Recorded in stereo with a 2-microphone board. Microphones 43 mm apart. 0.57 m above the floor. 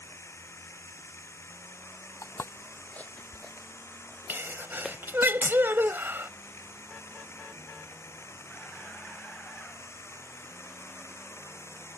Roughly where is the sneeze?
Right.